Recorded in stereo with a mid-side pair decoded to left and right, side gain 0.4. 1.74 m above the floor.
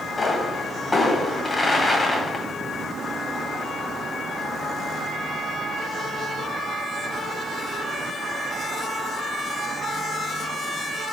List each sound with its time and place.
0.2 s a pop: 30° left, 1.3 m